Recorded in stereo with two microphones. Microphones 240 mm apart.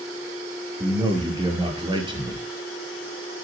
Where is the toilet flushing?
No toilet flushing in this recording.